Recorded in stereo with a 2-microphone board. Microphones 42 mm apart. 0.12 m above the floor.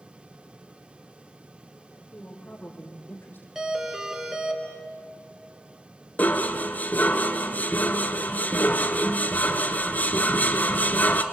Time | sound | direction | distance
2.1 | a woman speaking | 35° left (ahead or behind) | 5 m
3.5 | a doorbell | 10° right (ahead or behind) | 2 m
6.2 | dishes clattering | 40° left (ahead or behind) | 1.1 m